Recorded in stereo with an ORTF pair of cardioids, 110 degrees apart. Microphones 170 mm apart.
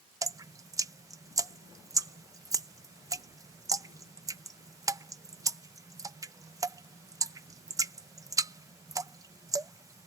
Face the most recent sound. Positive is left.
turn(degrees=-20)